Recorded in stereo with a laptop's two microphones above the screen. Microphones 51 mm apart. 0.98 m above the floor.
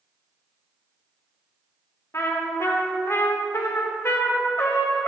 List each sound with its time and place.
2.1 s a trumpet: 65° left (ahead or behind), 1.1 m